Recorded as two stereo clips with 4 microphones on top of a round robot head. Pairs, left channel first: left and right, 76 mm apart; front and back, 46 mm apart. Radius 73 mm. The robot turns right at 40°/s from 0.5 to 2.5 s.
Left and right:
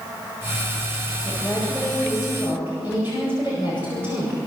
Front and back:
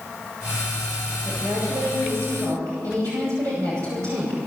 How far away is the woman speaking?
About 8.5 m.